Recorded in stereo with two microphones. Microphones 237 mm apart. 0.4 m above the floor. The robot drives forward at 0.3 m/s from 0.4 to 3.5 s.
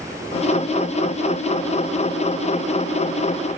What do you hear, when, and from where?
Only background noise.